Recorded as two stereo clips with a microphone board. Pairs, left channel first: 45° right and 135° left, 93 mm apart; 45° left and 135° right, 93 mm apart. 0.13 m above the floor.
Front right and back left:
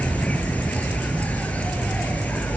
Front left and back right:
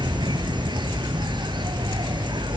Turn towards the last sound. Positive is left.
turn(degrees=-115)